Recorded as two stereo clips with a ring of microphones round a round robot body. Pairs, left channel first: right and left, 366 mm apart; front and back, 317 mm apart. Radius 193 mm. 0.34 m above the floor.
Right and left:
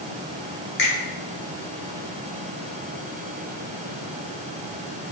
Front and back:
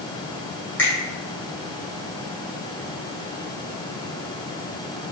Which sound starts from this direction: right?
A finger snap, at 0.8 s.